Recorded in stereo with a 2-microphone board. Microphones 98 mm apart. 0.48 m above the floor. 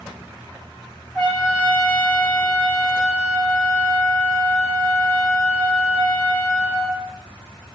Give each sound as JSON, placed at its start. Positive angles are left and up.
{"t": 1.1, "sound": "a trumpet", "side_deg": -10, "distance_m": 1.4}